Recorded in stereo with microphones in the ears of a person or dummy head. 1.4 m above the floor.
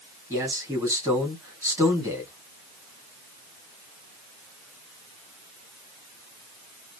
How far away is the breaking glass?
I don't hear breaking glass.